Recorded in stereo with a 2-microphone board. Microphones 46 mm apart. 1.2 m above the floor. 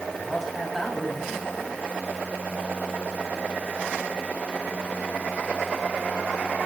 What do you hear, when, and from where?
0.1 s a man speaking: 5° left (ahead or behind), 7.5 m